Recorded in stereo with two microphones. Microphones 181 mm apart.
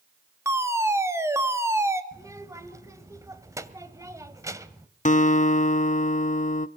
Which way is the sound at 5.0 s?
45° left (ahead or behind).